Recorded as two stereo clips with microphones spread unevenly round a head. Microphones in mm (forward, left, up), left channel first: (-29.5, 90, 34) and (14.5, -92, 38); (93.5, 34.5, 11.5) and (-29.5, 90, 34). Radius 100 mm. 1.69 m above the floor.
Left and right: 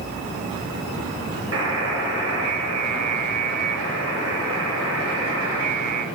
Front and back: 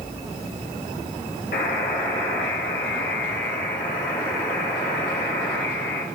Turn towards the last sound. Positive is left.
turn(degrees=-70)